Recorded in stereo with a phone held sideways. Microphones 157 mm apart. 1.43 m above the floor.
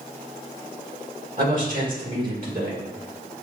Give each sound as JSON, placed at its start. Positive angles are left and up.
{"t": 1.4, "sound": "a man speaking", "side_deg": -60, "distance_m": 2.0}